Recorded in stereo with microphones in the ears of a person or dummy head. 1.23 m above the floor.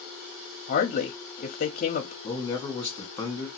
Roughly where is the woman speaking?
Left.